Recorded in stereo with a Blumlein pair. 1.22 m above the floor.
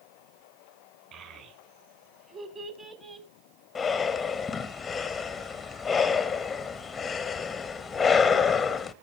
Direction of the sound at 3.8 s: 15° left.